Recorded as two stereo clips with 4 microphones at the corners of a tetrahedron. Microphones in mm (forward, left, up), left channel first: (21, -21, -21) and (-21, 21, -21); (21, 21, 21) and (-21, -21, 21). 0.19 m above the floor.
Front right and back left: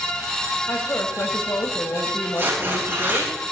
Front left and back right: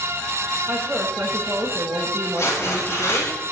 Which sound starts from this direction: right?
A woman speaking, at 0.7 s.